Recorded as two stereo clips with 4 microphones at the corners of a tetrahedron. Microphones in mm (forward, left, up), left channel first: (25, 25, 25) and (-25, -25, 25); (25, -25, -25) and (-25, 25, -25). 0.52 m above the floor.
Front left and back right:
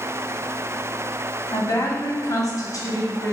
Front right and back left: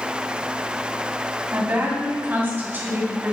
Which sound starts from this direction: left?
A woman speaking, at 1.5 s.